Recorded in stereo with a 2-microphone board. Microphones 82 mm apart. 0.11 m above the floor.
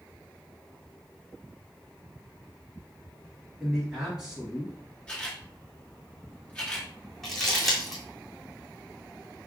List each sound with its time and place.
3.6 s a man speaking: 5° right (ahead or behind), 1.6 m
5.1 s a camera shutter: 15° left (ahead or behind), 1.8 m
7.2 s crumpling: 5° left (ahead or behind), 1.6 m